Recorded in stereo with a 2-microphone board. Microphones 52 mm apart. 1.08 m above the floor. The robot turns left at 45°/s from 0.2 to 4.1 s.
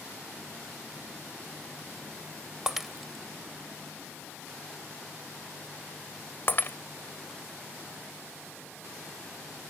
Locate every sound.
2.7 s breaking glass: 15° right (ahead or behind); by 6.8 s 45° left (ahead or behind)